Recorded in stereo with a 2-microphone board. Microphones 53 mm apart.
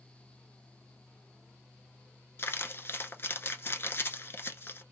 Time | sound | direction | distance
2.4 | crumpling | 45° left (ahead or behind) | 0.9 m